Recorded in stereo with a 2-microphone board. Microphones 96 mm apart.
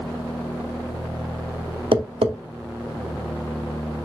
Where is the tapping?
75° right (ahead or behind), 0.7 m.